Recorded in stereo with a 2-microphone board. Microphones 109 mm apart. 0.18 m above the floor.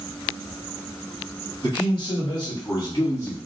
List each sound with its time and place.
1.6 s a man speaking: 45° left (ahead or behind), 1.8 m; by 3.4 s 35° left (ahead or behind), 1.4 m